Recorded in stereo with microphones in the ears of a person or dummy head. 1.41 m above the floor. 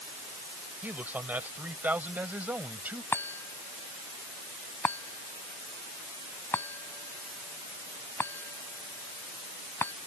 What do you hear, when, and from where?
0.8 s a man speaking: 10° right (ahead or behind)
3.1 s a chime: 10° left (ahead or behind)